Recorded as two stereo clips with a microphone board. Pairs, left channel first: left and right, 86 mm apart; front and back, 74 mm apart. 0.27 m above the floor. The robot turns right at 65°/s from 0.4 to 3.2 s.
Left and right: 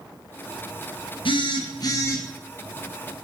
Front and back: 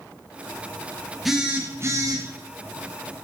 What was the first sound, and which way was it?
A phone buzzing, 90° left.